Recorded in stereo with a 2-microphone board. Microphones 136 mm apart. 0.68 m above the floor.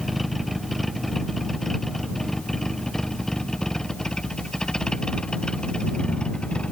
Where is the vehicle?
Centre (ahead or behind); by 6.7 s 5° left (ahead or behind).